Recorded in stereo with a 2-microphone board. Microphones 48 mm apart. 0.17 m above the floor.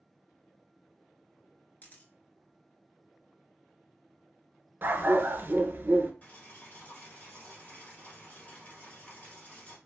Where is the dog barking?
45° right (ahead or behind), 0.5 m.